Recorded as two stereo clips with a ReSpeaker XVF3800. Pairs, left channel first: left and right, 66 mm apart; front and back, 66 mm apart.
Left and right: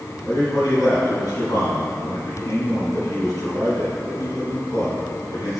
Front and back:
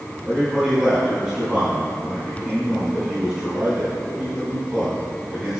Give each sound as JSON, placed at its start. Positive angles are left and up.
{"t": 0.2, "sound": "a man speaking", "azimuth_deg": 100, "distance_m": 3.0}